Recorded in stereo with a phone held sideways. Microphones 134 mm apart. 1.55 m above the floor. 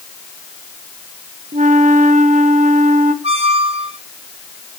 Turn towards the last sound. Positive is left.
turn(degrees=-50)  # may be behind; listen again after turning